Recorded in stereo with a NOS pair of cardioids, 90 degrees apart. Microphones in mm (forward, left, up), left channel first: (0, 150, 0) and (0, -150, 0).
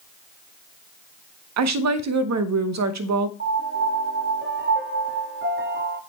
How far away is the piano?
About 1.3 m.